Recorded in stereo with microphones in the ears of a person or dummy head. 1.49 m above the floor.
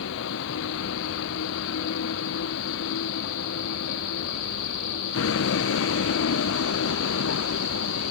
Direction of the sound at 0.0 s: 75° left (ahead or behind).